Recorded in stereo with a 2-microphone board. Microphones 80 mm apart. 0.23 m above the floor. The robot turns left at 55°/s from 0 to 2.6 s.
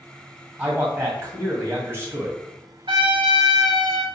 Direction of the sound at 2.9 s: 80° right.